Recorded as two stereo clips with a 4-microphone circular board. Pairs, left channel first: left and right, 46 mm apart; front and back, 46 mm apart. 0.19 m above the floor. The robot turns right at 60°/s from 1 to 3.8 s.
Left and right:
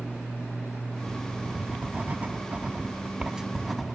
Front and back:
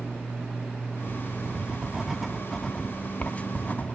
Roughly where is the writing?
Behind right.